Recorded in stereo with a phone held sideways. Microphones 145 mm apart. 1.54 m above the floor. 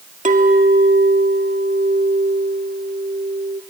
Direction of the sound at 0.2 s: 60° right (ahead or behind).